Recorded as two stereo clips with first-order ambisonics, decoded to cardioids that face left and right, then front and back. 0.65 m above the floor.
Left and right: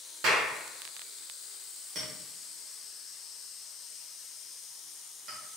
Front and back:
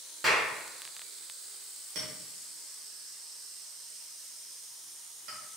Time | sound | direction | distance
0.2 | a clap | 100° right | 1.2 m
1.9 | a clink | 150° right | 1.5 m